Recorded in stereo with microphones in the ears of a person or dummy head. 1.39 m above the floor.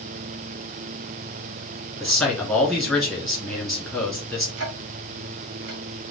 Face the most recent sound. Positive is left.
turn(degrees=-65)  # may be behind; listen again after turning